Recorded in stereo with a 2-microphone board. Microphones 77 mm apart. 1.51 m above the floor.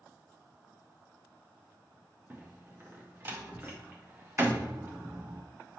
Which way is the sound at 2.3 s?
25° right (ahead or behind).